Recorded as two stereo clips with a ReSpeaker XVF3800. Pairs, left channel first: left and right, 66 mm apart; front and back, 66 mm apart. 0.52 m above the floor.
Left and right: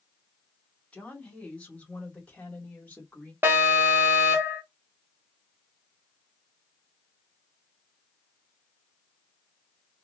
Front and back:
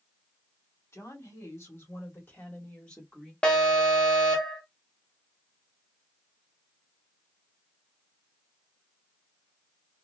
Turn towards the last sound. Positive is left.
turn(degrees=-60)